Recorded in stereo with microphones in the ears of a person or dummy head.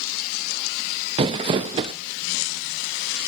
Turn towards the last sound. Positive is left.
turn(degrees=-35)  # may be behind; listen again after turning